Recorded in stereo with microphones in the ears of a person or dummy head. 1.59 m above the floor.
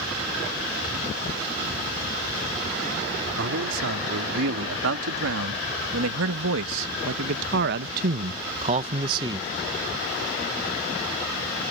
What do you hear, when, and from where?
3.4 s a man speaking: 70° right (ahead or behind); by 9.5 s 20° right (ahead or behind)